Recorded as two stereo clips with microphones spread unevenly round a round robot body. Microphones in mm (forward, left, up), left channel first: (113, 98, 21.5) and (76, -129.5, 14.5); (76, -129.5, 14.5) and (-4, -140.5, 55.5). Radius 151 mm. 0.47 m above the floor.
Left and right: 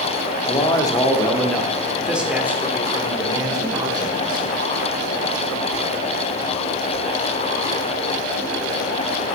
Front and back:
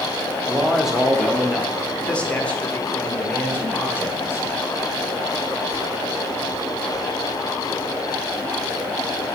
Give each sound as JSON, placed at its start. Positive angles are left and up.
{"t": 0.5, "sound": "a man speaking", "azimuth_deg": 50, "distance_m": 1.1}